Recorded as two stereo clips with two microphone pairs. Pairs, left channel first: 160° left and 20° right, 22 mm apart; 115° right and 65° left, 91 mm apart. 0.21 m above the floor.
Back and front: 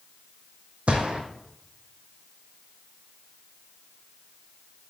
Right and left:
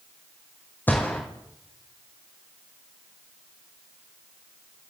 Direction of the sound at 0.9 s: 45° right.